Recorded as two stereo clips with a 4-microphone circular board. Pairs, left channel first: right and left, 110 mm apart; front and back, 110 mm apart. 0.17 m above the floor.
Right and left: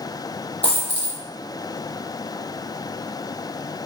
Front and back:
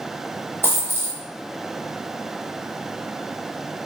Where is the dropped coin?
115° right, 0.9 m.